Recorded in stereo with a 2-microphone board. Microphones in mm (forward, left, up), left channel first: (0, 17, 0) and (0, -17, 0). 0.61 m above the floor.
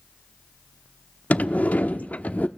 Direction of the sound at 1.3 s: 55° left (ahead or behind).